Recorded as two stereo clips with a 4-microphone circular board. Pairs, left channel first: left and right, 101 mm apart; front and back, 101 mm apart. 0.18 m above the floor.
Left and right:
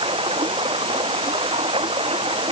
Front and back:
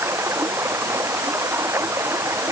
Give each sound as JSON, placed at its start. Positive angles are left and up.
{"t": 0.0, "sound": "running water", "azimuth_deg": -115}